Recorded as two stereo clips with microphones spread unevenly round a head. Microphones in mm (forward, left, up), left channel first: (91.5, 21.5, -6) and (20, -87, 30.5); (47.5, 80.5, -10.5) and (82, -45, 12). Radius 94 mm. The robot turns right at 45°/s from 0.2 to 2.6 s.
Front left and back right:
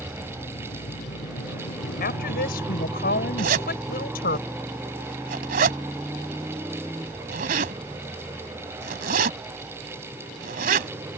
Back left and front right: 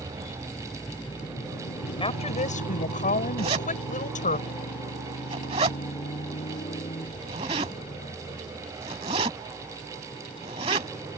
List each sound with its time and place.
0.0 s a motorcycle: 20° right; by 11.2 s 175° left
2.0 s a woman speaking: 55° left; by 4.4 s 85° left
3.4 s a zipper: 135° right